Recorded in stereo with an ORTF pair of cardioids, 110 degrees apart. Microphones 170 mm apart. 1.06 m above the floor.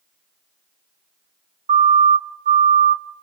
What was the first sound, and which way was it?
A siren, 45° right.